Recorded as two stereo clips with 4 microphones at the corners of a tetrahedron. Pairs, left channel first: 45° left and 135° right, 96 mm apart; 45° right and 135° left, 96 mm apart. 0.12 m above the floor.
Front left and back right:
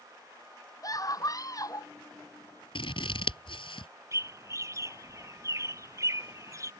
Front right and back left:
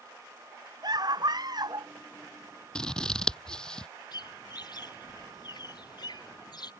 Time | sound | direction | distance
0.8 | a scream | 95° left | ?
2.8 | scissors | 35° left | ?
4.1 | a bird | 80° right | ?